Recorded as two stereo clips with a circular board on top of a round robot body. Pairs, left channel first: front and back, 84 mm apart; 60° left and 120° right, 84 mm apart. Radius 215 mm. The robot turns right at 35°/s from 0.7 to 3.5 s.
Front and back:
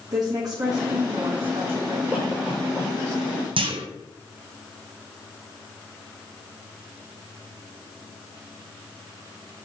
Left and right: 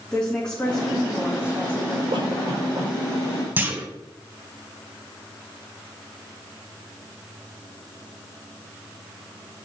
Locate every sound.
0.1 s a woman speaking: 140° left, 2.5 m; by 2.0 s 175° right, 2.5 m
2.1 s a cough: 95° right, 6 m; by 2.9 s 65° right, 6 m
3.6 s a clunk: 170° left, 1.3 m